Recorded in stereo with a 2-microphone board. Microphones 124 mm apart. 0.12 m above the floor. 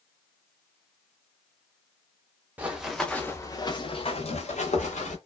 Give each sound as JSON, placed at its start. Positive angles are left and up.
{"t": 2.6, "sound": "running footsteps", "side_deg": -15, "distance_m": 0.8}